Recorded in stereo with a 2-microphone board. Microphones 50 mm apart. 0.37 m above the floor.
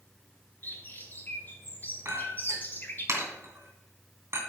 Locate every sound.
0.6 s a bird: 40° left (ahead or behind), 1.3 m
2.0 s a clink: 65° right (ahead or behind), 2.5 m